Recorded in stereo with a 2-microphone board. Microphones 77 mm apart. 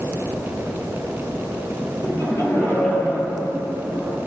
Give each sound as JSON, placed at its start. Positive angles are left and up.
{"t": 2.0, "sound": "laughter", "side_deg": 45, "distance_m": 3.0}